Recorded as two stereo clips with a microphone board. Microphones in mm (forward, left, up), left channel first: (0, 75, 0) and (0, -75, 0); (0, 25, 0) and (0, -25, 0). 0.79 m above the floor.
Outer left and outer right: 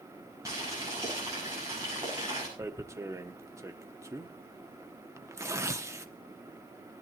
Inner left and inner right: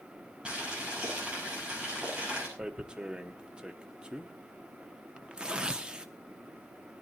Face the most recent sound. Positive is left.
turn(degrees=-20)  # may be behind; listen again after turning